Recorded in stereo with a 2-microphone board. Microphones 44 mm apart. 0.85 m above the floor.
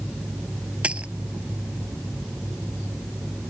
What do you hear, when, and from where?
0.8 s a dropped coin: 25° right (ahead or behind)